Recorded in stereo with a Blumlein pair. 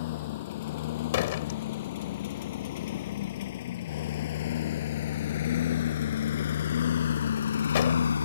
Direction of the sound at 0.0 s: 55° left.